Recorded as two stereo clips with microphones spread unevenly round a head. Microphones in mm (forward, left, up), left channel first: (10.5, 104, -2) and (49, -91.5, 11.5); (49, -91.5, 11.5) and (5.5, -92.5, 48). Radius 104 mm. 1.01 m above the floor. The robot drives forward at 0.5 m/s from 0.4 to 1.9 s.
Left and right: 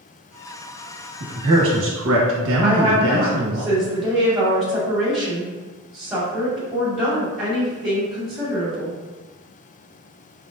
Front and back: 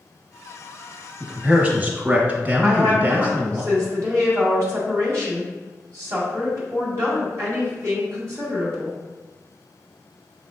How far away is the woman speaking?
About 2.0 m.